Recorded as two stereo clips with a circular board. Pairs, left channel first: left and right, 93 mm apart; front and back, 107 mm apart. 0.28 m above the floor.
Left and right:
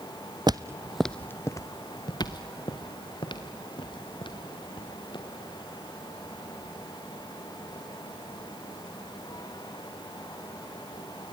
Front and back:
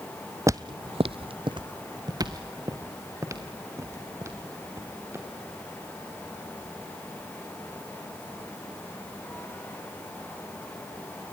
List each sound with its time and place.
0.5 s footsteps: 120° right, 0.6 m; by 5.2 s 115° left, 4 m